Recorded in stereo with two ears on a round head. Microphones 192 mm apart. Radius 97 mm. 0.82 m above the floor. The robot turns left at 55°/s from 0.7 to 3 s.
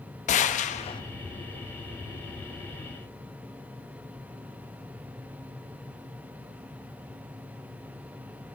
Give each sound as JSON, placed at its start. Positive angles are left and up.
{"t": 0.3, "sound": "a gunshot", "side_deg": 35, "distance_m": 0.7}